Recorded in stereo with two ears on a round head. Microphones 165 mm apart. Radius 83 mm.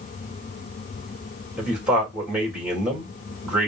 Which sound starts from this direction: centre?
A man speaking, at 1.6 s.